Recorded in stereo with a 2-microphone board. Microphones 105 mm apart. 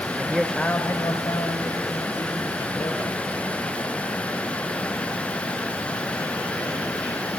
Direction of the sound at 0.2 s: 20° right (ahead or behind).